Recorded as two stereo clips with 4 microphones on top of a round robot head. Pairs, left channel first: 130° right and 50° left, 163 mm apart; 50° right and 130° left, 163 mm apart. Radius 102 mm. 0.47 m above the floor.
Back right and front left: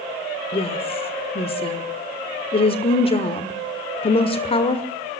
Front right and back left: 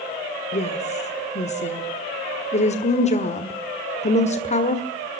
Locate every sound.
0.5 s a woman speaking: 85° right, 1.6 m